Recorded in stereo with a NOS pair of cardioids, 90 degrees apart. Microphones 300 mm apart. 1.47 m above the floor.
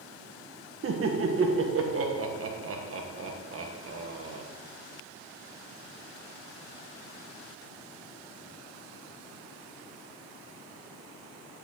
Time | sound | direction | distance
0.8 | laughter | 45° right | 1.4 m